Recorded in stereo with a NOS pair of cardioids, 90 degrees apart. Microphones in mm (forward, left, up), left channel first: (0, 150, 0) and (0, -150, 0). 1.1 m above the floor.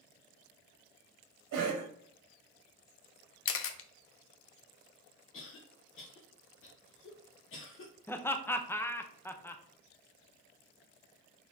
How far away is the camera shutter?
About 0.5 m.